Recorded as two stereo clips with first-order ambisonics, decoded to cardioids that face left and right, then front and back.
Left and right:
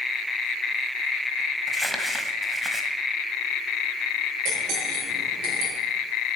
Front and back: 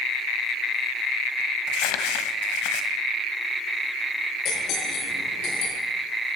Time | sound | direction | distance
1.7 | crumpling | 5° right | 1.4 m
4.5 | cutlery clinking | 45° right | 6.5 m